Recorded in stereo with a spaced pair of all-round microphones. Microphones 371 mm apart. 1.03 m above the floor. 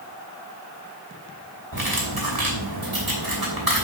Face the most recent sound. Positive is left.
turn(degrees=-70)  # may be behind; listen again after turning